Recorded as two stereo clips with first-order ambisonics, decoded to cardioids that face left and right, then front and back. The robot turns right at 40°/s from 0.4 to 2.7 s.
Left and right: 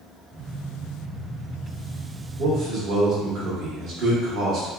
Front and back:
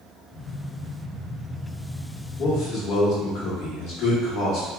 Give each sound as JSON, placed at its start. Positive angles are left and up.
{"t": 2.4, "sound": "a man speaking", "azimuth_deg": -55, "distance_m": 1.0}